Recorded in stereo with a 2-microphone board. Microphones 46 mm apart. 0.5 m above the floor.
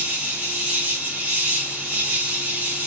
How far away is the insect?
About 0.8 m.